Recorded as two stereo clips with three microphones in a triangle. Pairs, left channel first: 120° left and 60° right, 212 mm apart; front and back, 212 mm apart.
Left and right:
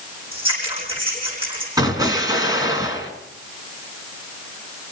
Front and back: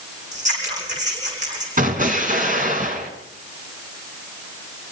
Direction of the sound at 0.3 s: 125° right.